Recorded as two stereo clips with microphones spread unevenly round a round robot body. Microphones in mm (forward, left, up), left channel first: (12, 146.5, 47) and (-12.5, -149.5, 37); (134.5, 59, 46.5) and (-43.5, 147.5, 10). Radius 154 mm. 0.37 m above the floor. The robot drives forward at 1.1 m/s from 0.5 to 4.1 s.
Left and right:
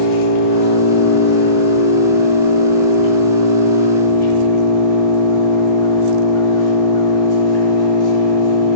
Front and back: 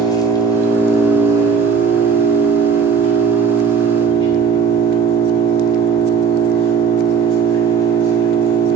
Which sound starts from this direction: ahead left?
An engine running, at 0.0 s.